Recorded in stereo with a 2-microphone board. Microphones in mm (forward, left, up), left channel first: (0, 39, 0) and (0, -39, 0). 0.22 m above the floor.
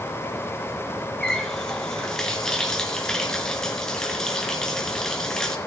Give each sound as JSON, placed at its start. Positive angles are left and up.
{"t": 1.2, "sound": "a running tap", "side_deg": 5, "distance_m": 1.9}